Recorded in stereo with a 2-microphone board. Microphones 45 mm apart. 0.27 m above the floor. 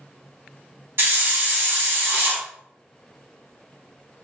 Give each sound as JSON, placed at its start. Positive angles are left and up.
{"t": 1.0, "sound": "a hiss", "side_deg": -55, "distance_m": 0.9}